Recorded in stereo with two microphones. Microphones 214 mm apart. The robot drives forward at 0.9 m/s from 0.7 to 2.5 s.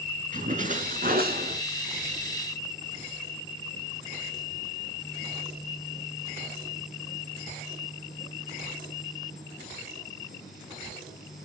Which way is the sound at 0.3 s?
40° right (ahead or behind).